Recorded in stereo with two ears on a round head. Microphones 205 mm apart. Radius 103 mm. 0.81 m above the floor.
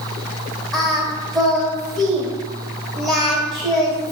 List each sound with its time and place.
0.7 s singing: centre (ahead or behind), 0.8 m